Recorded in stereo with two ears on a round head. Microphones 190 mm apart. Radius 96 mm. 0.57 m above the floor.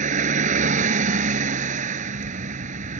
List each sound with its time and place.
0.0 s a vehicle: 35° right (ahead or behind)